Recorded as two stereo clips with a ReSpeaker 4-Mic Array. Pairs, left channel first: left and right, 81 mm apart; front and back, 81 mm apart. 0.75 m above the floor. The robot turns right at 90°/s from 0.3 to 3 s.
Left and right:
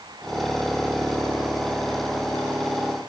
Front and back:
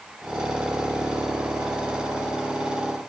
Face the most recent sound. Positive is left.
No sound to turn to.